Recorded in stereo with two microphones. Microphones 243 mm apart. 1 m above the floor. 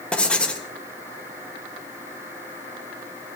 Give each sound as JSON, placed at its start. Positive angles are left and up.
{"t": 0.1, "sound": "writing", "side_deg": 5, "distance_m": 1.7}